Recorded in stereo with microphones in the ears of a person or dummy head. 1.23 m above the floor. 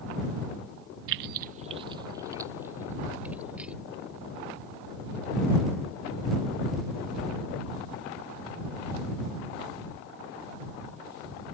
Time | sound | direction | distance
1.1 | keys jangling | 60° right (ahead or behind) | ?